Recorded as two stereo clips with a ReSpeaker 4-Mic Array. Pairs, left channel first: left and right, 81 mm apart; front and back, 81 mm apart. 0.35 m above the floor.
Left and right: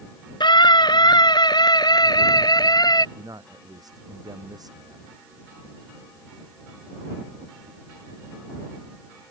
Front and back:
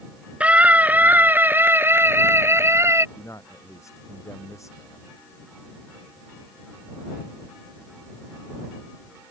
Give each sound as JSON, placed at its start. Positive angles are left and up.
{"t": 0.4, "sound": "a scream", "azimuth_deg": 105}
{"t": 3.1, "sound": "a man speaking", "azimuth_deg": -50}